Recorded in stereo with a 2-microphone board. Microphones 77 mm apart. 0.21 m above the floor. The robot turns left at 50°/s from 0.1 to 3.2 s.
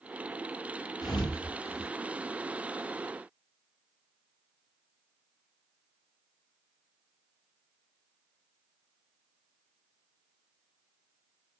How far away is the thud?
About 1.1 m.